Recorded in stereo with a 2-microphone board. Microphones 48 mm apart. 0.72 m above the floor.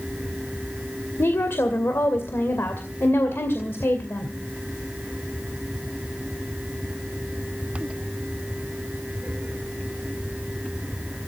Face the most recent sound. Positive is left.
turn(degrees=60)  # may be behind; listen again after turning